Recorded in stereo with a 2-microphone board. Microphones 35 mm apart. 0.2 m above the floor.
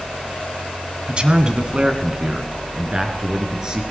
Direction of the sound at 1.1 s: 30° right (ahead or behind).